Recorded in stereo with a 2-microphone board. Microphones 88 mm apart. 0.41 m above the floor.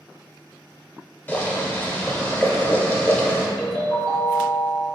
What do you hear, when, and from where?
1.3 s boiling: 25° left (ahead or behind), 0.7 m
3.6 s a ringtone: 75° left (ahead or behind), 1.0 m